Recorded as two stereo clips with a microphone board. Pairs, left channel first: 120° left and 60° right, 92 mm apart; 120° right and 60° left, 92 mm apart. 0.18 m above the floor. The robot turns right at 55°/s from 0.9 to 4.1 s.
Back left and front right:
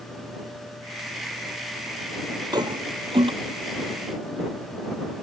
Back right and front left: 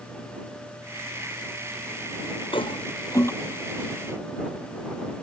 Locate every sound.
2.5 s a toilet flushing: 100° right; by 3.3 s 60° right